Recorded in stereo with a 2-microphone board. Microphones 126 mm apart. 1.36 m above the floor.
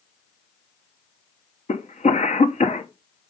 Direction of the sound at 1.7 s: 75° left (ahead or behind).